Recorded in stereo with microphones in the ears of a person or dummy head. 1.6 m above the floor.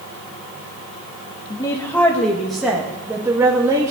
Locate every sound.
1.5 s a woman speaking: 15° left (ahead or behind), 1.5 m; by 3.9 s 15° right (ahead or behind), 2 m